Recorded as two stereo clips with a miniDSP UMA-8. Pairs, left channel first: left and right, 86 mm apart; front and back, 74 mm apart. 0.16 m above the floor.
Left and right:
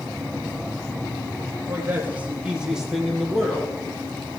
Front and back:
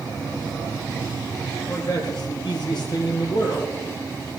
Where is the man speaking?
30° right, 4 m; by 3.7 s 10° left, 5 m.